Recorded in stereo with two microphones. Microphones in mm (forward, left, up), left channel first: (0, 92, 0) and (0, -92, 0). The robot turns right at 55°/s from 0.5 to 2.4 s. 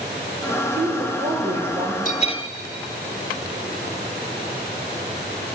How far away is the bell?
About 0.6 m.